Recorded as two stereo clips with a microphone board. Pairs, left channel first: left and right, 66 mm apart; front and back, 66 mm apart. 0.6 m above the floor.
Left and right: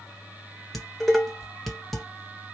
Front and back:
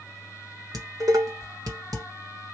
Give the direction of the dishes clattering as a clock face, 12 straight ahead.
6 o'clock.